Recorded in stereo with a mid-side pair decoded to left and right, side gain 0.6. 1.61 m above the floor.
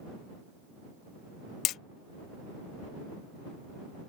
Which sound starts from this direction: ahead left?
Hammering, at 1.6 s.